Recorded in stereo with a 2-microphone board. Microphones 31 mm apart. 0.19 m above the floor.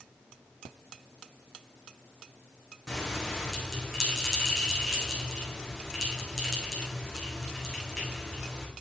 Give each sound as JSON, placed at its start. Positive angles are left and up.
{"t": 2.9, "sound": "a bell", "side_deg": 10, "distance_m": 6.5}